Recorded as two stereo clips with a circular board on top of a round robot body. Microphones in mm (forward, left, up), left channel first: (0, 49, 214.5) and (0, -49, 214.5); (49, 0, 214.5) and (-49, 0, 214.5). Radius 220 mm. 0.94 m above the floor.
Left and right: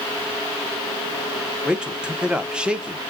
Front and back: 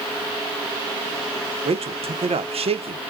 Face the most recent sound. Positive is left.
turn(degrees=-170)